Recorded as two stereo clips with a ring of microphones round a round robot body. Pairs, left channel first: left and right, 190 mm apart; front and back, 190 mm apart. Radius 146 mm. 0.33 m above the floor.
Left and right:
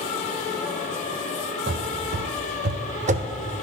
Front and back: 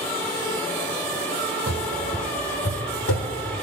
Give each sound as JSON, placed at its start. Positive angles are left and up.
{"t": 1.7, "sound": "running footsteps", "azimuth_deg": -140, "distance_m": 0.7}